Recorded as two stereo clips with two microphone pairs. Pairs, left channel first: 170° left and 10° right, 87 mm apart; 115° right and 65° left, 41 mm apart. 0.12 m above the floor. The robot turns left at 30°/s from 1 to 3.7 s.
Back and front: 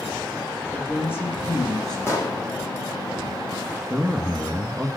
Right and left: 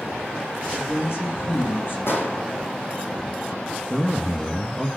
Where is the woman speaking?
120° right, 6.5 m; by 2.0 s 150° right, 6.5 m.